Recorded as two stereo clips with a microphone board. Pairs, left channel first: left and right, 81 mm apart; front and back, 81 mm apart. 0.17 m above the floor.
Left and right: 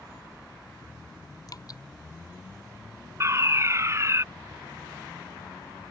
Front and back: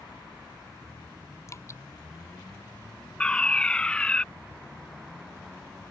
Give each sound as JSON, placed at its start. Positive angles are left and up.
{"t": 1.5, "sound": "dripping", "azimuth_deg": 50}
{"t": 3.2, "sound": "a fire alarm", "azimuth_deg": -70}